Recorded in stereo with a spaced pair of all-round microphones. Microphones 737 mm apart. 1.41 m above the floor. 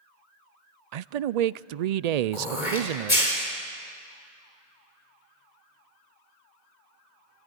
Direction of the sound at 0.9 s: 65° right (ahead or behind).